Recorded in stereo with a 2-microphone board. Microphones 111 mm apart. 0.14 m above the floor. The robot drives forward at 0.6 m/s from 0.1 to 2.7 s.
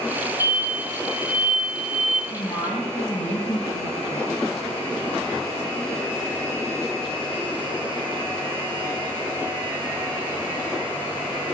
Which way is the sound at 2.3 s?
65° left (ahead or behind).